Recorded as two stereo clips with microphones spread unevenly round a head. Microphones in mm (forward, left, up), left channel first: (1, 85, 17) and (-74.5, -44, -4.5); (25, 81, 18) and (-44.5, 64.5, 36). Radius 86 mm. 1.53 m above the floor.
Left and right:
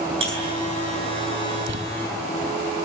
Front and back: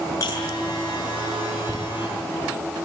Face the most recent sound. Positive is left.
turn(degrees=-105)